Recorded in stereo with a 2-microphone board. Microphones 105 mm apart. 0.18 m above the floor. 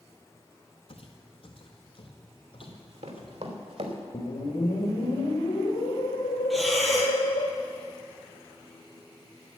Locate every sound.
0.9 s footsteps: 65° left (ahead or behind), 1.5 m; by 3.3 s 50° left (ahead or behind), 3 m
2.6 s running footsteps: 85° right, 3 m; by 4.0 s 70° right (ahead or behind), 3 m
4.1 s a whoosh: 70° left (ahead or behind), 3 m
6.5 s breathing: centre (ahead or behind), 1.7 m